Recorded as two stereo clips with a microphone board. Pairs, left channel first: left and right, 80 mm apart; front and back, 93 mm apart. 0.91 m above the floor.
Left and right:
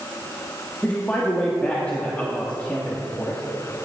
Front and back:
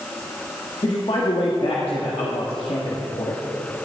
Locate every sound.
0.8 s a man speaking: 15° left, 1.3 m